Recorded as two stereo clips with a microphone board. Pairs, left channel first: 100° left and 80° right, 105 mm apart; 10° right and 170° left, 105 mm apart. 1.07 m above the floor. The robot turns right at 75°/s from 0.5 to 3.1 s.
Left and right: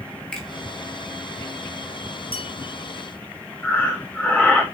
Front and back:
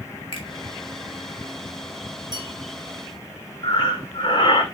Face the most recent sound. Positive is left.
turn(degrees=25)